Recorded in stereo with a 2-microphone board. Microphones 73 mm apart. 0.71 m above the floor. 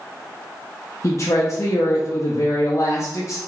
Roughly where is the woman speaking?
Left.